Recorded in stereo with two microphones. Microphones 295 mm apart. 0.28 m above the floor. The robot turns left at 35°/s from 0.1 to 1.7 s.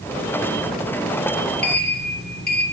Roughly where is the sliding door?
Left.